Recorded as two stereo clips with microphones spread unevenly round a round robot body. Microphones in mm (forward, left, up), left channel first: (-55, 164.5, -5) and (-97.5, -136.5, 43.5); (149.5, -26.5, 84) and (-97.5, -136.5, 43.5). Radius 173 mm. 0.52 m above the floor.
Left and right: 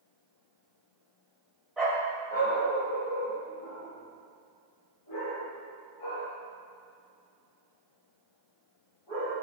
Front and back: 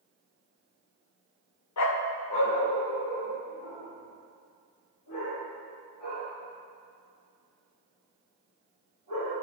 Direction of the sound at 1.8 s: 10° right.